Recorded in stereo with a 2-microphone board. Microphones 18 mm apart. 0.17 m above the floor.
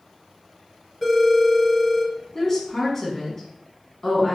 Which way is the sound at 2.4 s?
25° left (ahead or behind).